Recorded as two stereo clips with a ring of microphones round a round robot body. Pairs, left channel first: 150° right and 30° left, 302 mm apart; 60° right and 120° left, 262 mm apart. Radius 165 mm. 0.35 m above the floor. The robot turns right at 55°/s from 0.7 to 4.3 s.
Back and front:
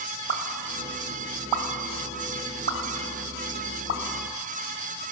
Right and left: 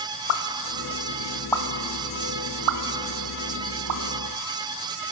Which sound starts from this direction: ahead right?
A pop, at 0.3 s.